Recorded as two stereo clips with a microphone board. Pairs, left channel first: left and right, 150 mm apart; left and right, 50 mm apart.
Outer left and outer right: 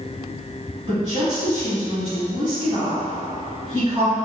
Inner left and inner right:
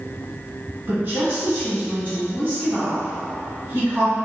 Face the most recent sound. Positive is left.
turn(degrees=-30)  # may be behind; listen again after turning